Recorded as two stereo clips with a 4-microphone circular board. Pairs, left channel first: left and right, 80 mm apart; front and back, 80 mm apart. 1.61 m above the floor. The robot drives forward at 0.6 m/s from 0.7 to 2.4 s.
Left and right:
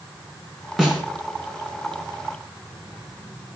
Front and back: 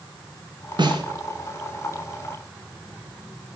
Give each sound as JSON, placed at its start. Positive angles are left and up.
{"t": 0.8, "sound": "a snare drum", "azimuth_deg": -175, "distance_m": 3.0}